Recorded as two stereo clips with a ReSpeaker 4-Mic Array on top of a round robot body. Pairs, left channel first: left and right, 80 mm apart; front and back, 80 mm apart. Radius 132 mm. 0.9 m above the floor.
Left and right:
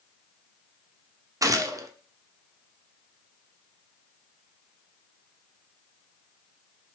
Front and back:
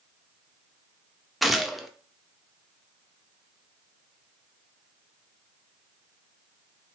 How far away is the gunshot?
About 0.5 m.